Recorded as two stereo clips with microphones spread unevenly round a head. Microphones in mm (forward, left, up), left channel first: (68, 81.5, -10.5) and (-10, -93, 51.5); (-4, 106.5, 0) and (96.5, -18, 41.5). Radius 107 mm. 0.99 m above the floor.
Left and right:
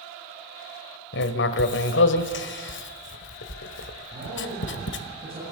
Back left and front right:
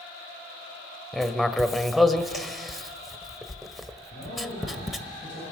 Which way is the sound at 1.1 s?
30° left.